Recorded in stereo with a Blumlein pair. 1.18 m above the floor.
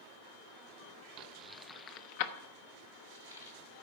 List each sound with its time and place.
1.2 s keys jangling: 40° right, 0.6 m; by 3.5 s 75° left, 1.8 m